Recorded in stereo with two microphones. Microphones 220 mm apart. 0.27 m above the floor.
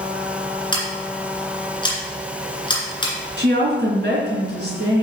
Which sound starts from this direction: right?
A woman speaking, at 3.4 s.